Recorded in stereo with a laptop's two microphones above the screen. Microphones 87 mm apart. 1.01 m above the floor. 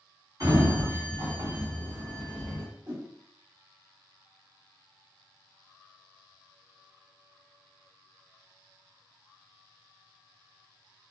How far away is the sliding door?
About 1.5 m.